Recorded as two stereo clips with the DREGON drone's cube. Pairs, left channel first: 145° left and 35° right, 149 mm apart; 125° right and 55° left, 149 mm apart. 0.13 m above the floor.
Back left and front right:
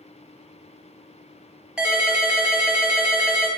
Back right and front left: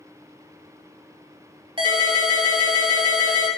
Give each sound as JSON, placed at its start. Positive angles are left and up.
{"t": 1.8, "sound": "a ringtone", "azimuth_deg": 45, "distance_m": 0.8}